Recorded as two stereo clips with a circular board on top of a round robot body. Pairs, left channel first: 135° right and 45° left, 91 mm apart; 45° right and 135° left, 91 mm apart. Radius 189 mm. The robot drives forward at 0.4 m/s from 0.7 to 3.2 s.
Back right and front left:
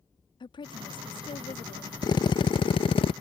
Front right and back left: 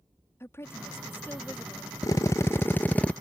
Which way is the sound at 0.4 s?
110° right.